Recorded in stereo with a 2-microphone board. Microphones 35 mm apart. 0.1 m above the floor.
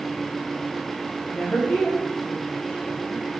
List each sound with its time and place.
1.3 s a woman speaking: 40° left (ahead or behind), 6 m